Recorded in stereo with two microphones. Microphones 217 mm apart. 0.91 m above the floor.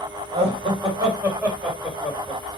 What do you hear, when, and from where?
0.3 s laughter: 25° right (ahead or behind), 4 m; by 2.4 s 10° left (ahead or behind), 3 m